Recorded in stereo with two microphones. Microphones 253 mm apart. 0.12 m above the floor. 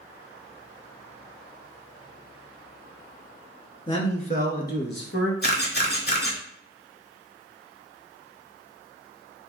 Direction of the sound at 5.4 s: 45° left (ahead or behind).